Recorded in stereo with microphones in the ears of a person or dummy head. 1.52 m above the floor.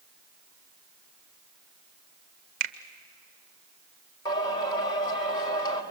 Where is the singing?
25° left (ahead or behind), 2 m.